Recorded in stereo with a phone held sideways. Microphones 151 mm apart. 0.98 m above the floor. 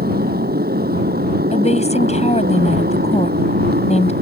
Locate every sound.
0.0 s a motorcycle: 80° right; by 4.2 s 90° right
1.5 s a woman speaking: 45° left (ahead or behind)